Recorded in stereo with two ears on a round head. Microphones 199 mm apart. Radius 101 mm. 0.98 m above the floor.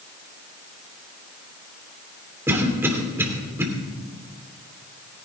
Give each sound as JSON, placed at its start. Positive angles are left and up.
{"t": 2.5, "sound": "a cough", "side_deg": -10, "distance_m": 2.5}